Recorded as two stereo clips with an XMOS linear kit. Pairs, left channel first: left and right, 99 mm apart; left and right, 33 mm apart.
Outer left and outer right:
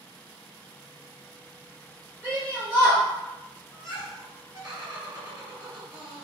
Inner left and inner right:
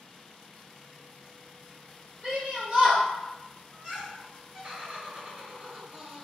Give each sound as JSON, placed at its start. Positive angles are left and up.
{"t": 2.2, "sound": "a shout", "side_deg": -25, "distance_m": 1.2}
{"t": 3.7, "sound": "laughter", "side_deg": -35, "distance_m": 1.9}